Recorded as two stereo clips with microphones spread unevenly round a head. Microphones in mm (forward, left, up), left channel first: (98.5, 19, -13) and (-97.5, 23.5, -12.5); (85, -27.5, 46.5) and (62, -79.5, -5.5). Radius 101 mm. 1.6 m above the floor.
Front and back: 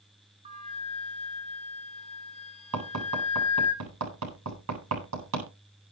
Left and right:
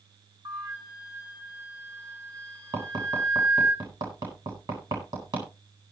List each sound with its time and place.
0.5 s a flute: 120° right, 3.5 m
2.7 s tapping: 170° right, 9 m